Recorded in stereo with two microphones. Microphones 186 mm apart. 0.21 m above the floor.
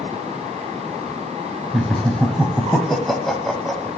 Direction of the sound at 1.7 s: Centre (ahead or behind).